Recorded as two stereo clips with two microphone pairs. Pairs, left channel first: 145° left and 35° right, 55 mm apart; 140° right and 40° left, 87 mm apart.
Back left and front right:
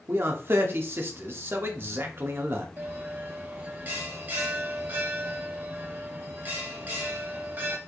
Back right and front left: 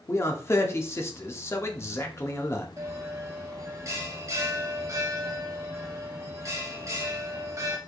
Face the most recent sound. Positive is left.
turn(degrees=5)